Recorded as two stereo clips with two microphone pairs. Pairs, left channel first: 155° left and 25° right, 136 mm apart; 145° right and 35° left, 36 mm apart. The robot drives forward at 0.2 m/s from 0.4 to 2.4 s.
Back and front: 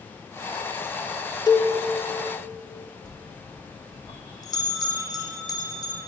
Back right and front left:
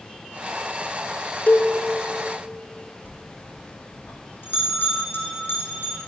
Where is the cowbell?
150° right, 0.9 m; by 1.7 s 155° right, 0.9 m.